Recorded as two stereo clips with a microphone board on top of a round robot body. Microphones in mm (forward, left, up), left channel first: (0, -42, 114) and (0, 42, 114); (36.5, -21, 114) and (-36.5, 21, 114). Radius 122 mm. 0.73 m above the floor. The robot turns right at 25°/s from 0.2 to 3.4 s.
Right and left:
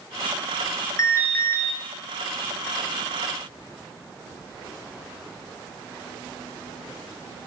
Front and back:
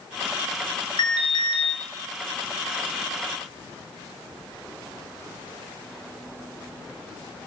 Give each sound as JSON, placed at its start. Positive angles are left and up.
{"t": 1.0, "sound": "an alarm", "azimuth_deg": -40, "distance_m": 1.4}